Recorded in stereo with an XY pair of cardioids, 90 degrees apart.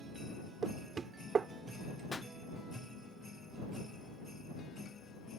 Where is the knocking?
55° right.